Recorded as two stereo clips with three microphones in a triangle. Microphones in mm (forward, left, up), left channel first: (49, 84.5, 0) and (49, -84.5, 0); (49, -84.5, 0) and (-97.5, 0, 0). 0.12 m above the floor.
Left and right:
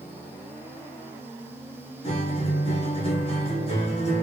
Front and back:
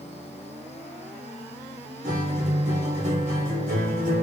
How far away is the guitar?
About 1.8 m.